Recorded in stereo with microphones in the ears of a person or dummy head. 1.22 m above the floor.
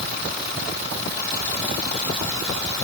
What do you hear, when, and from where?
Only background noise.